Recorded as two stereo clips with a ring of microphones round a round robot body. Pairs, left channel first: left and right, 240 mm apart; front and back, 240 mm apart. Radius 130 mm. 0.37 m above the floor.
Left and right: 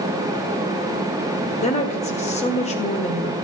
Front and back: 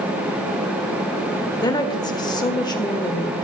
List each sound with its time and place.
1.6 s a woman speaking: 60° left, 1.3 m